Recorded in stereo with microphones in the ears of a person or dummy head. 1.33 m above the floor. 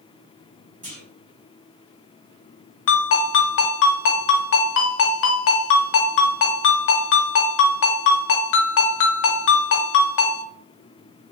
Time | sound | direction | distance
0.8 | a clunk | 40° right (ahead or behind) | 0.9 m
2.9 | a ringtone | 65° left (ahead or behind) | 0.6 m